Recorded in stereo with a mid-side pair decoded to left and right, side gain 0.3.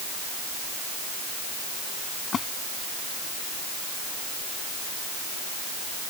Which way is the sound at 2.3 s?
65° left.